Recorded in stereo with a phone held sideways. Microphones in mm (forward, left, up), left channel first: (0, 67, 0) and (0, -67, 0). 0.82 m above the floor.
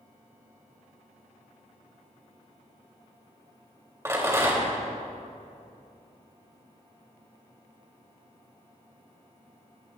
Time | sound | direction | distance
4.0 | a rattle | 20° right (ahead or behind) | 3.5 m